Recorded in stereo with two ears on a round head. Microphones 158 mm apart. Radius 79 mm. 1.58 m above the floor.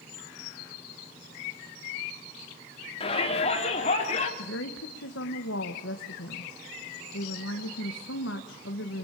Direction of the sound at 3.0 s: 35° left (ahead or behind).